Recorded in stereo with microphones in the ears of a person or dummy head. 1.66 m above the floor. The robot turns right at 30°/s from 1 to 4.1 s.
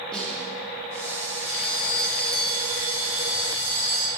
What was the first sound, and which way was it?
A snare drum, 5° left (ahead or behind).